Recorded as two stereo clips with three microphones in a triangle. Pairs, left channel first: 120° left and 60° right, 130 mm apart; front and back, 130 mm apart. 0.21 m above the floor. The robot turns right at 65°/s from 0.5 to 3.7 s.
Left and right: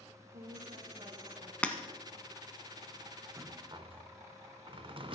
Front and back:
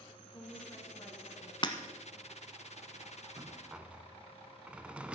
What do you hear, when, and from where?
0.3 s a woman speaking: 65° right, 3 m; by 1.5 s 5° left, 3 m
1.6 s breaking glass: 40° left, 1.0 m; by 1.7 s 50° left, 1.0 m
3.4 s a rattle: 120° right, 0.5 m; by 5.2 s 100° right, 0.5 m